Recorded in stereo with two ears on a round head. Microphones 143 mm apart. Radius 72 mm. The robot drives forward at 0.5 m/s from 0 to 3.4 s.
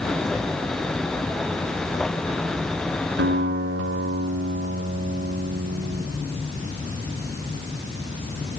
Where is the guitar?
80° right, 4 m.